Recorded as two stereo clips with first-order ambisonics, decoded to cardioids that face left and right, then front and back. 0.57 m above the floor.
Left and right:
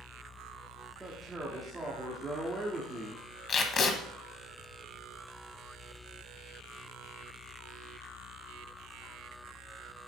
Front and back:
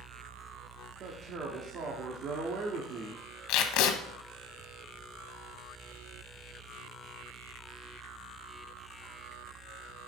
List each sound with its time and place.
1.0 s a man speaking: 160° right, 1.1 m
3.5 s tape being pulled: 25° left, 0.8 m